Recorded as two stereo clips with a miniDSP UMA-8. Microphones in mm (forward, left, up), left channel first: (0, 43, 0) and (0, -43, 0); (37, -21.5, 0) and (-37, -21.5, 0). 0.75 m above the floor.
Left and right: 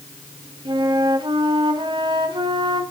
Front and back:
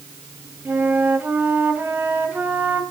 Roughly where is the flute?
Behind right.